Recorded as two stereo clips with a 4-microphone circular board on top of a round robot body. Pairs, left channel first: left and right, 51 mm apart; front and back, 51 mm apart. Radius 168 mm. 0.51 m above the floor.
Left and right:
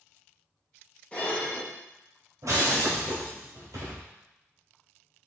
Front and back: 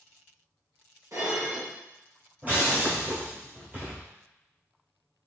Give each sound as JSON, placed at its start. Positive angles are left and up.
{"t": 1.1, "sound": "dishes clattering", "azimuth_deg": 155, "distance_m": 2.0}
{"t": 2.4, "sound": "breaking glass", "azimuth_deg": -120, "distance_m": 1.2}